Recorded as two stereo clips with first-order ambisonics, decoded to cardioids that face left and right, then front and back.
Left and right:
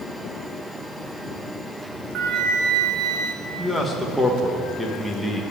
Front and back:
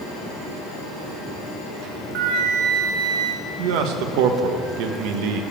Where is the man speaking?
Straight behind, 1.5 m.